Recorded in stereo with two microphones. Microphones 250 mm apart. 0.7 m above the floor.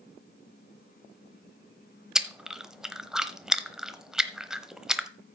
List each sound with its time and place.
2.1 s chewing: centre (ahead or behind), 0.8 m